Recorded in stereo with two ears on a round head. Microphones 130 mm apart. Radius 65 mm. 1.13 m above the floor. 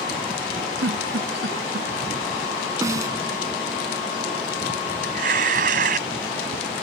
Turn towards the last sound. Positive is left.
turn(degrees=-60)  # may be behind; listen again after turning